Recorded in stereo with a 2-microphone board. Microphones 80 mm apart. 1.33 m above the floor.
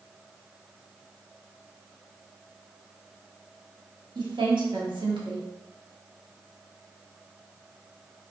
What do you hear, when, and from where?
4.2 s a woman speaking: 75° right (ahead or behind), 1.0 m